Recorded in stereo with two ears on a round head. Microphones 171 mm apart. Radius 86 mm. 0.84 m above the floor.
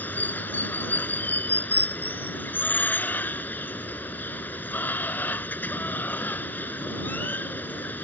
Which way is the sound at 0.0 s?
10° left (ahead or behind).